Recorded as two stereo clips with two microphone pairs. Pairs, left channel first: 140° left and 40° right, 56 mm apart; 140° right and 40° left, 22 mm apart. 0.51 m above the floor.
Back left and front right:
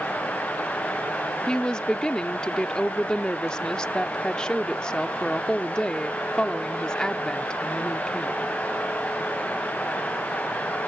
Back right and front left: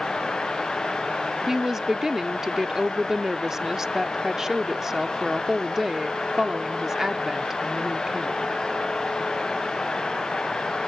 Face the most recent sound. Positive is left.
turn(degrees=80)